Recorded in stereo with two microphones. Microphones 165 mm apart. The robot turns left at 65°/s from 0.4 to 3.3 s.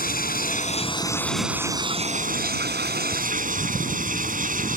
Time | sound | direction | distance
0.0 | running water | 65° left | ?